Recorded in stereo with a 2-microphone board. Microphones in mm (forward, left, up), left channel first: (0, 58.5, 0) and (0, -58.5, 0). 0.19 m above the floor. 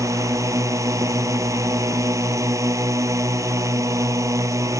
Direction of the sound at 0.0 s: 25° right (ahead or behind).